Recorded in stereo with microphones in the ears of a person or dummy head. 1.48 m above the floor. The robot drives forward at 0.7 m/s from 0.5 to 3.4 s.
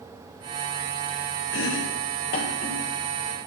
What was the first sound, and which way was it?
Chopping, 65° left (ahead or behind).